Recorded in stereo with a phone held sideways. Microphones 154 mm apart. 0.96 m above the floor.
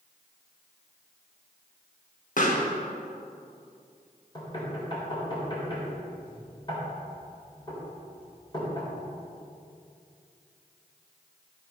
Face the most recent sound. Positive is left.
turn(degrees=30)  # may be behind; listen again after turning